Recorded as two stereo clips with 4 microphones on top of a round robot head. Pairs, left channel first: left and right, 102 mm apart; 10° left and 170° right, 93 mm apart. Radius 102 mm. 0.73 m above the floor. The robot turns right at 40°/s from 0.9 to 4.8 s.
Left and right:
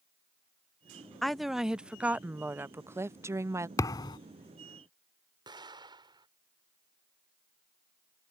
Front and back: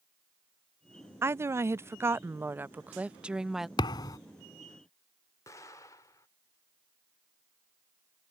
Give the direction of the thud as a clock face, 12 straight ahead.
11 o'clock.